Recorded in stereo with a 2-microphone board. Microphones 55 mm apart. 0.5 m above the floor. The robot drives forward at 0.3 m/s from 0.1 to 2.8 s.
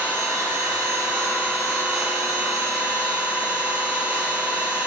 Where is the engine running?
65° right (ahead or behind), 1.0 m; by 4.9 s 35° right (ahead or behind), 1.5 m.